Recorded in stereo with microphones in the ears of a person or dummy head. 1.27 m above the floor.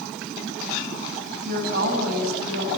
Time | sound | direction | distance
1.4 | a woman speaking | 60° right (ahead or behind) | 9 m